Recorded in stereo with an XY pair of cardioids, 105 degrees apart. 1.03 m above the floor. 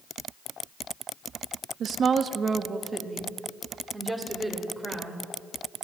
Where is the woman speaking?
60° right, 0.8 m; by 5.3 s 10° right, 3.5 m.